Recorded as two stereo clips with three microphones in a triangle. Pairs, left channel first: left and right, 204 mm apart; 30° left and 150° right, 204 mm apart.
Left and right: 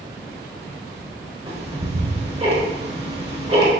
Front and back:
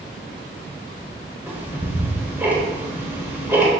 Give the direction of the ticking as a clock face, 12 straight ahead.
3 o'clock.